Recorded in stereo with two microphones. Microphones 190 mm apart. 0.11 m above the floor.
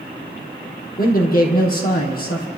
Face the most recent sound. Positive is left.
turn(degrees=50)  # may be behind; listen again after turning